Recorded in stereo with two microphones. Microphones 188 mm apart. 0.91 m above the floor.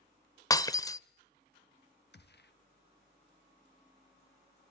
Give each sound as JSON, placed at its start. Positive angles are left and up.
{"t": 0.5, "sound": "breaking glass", "side_deg": 20, "distance_m": 0.7}
{"t": 2.1, "sound": "a gunshot", "side_deg": 65, "distance_m": 0.9}